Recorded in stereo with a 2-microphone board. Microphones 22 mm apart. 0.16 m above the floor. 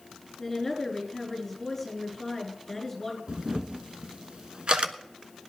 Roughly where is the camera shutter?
Right.